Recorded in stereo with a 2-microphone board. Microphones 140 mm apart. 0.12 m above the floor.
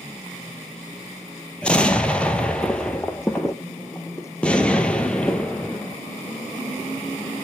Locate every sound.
1.6 s an explosion: 10° left (ahead or behind), 0.7 m